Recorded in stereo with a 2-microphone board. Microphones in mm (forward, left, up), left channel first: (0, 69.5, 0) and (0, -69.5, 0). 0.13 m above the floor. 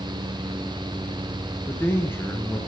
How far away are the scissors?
I don't hear scissors.